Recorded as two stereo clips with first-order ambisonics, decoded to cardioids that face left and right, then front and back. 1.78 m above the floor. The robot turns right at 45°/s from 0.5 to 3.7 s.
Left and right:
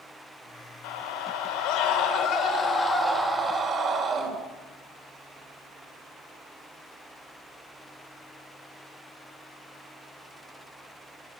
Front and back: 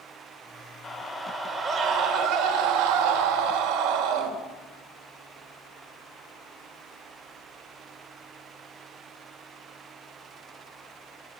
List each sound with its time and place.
0.8 s a scream: 80° left, 3 m; by 4.3 s 150° right, 3 m